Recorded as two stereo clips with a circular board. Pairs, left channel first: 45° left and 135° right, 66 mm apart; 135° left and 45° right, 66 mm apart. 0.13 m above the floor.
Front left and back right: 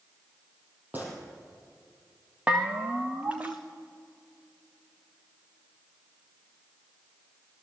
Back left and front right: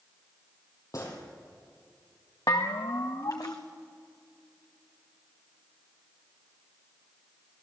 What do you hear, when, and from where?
0.9 s a gunshot: 165° left, 4.5 m
2.5 s a bell: 155° left, 2 m